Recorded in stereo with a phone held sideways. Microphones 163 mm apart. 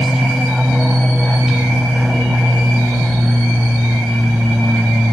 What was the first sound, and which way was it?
An aircraft, centre (ahead or behind).